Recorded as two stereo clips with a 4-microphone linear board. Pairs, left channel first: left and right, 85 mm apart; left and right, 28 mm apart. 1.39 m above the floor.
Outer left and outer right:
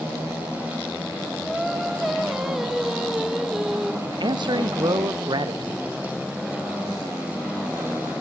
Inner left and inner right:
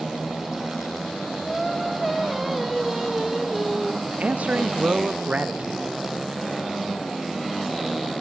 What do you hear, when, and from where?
1.4 s singing: 5° right (ahead or behind), 1.2 m
4.0 s a man speaking: 60° right (ahead or behind), 0.8 m